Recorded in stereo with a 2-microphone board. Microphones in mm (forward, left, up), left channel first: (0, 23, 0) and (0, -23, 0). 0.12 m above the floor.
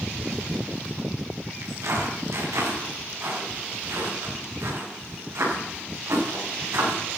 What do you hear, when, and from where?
1.6 s footsteps: 80° right, 7.5 m; by 7.0 s 85° right, 11 m